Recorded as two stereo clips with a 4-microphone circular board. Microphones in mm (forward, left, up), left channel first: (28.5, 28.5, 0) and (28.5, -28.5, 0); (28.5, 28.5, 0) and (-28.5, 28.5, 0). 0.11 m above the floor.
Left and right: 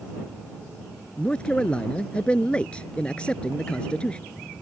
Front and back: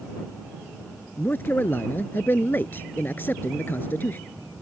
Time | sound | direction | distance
1.2 | a man speaking | 30° left | ?